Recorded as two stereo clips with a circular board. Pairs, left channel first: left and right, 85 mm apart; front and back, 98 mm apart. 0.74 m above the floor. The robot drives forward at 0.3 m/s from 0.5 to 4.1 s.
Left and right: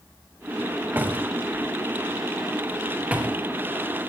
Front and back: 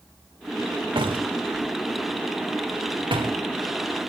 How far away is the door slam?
About 2.5 m.